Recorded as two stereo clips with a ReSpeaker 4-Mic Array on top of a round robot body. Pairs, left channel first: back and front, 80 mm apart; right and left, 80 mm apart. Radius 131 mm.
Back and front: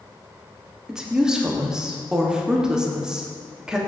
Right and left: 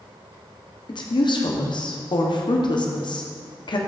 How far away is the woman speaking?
About 1.2 m.